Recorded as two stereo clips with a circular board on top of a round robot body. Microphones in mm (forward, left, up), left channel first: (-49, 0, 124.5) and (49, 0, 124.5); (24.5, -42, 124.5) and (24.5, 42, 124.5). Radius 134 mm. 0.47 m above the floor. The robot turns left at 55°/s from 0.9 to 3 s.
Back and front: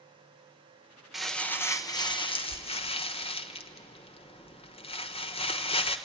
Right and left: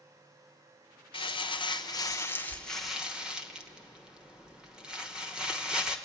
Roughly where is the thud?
No thud in this recording.